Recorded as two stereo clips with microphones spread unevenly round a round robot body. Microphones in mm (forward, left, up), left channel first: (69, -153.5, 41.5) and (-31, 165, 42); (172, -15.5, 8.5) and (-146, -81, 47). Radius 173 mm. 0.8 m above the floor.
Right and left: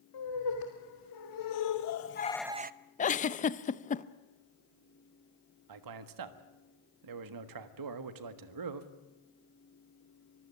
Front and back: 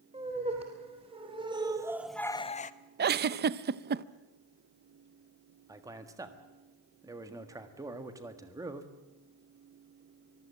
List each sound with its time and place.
0.1 s laughter: 95° right, 3 m; by 2.7 s 60° left, 0.8 m
3.0 s a giggle: 120° right, 0.6 m
5.7 s a man speaking: 110° left, 1.5 m